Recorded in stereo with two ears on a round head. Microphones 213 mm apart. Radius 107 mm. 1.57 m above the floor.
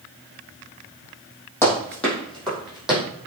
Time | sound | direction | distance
1.6 | running footsteps | 10° left (ahead or behind) | 3.5 m